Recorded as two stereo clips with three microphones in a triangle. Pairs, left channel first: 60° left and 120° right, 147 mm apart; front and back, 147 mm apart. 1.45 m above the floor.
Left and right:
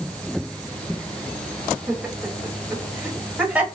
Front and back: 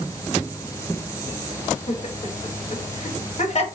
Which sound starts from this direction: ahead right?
Laughter, at 1.9 s.